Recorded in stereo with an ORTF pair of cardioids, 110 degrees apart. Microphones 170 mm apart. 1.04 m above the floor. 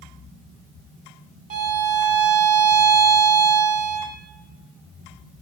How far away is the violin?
About 2.5 m.